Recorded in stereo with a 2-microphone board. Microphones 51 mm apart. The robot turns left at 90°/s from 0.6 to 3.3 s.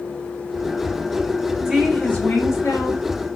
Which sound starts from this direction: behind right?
A woman speaking, at 1.6 s.